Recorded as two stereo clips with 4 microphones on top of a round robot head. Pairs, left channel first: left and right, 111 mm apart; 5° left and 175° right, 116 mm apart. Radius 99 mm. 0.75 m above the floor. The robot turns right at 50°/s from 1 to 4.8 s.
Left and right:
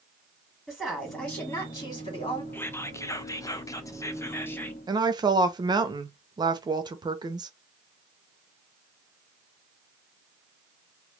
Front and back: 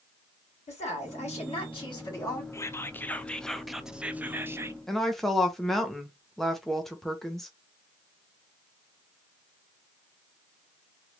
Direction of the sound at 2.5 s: 40° left.